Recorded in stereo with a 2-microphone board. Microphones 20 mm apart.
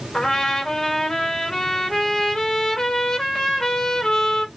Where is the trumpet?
35° left (ahead or behind), 2 m.